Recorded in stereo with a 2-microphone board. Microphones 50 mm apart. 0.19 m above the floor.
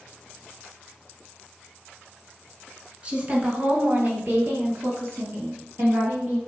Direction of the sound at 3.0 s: 30° right (ahead or behind).